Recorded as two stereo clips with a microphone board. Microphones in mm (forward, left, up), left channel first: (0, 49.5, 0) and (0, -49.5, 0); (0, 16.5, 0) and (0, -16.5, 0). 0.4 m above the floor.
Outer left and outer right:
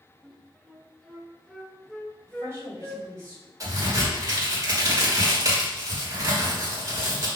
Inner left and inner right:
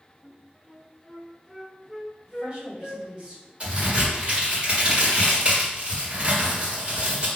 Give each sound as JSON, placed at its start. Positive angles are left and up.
{"t": 0.2, "sound": "a flute", "side_deg": 5, "distance_m": 0.7}
{"t": 2.3, "sound": "a woman speaking", "side_deg": -30, "distance_m": 2.0}
{"t": 3.6, "sound": "a crack", "side_deg": -35, "distance_m": 1.8}